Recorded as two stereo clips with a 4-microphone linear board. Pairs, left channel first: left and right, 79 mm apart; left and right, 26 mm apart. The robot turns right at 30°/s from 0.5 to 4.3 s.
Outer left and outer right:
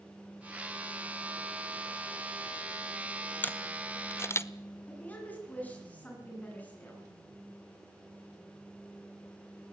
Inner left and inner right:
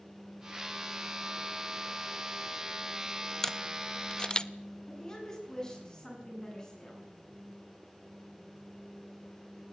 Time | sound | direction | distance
3.4 | a camera shutter | 20° left (ahead or behind) | 0.8 m
4.9 | a woman speaking | 20° left (ahead or behind) | 9 m